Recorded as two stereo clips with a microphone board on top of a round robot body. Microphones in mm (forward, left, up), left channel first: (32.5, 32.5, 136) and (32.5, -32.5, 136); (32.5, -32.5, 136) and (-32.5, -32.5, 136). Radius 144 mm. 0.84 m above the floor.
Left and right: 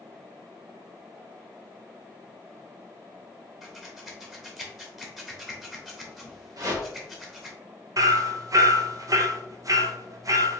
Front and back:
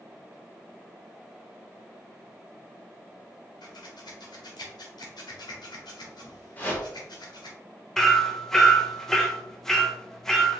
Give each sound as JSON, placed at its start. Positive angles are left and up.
{"t": 3.6, "sound": "scissors", "azimuth_deg": 0, "distance_m": 0.9}
{"t": 6.6, "sound": "a whoosh", "azimuth_deg": -65, "distance_m": 1.1}
{"t": 8.0, "sound": "hammering", "azimuth_deg": -85, "distance_m": 0.7}